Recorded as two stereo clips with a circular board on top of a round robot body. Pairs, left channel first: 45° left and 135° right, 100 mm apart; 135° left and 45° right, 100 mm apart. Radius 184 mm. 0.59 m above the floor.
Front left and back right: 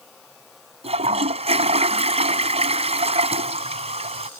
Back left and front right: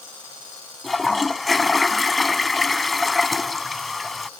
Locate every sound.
0.8 s a toilet flushing: 135° right